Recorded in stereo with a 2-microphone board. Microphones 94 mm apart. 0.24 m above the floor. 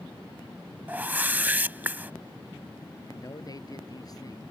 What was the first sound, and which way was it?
A whoosh, 20° right (ahead or behind).